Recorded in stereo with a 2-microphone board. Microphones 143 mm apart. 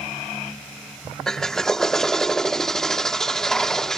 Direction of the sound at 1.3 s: 5° left (ahead or behind).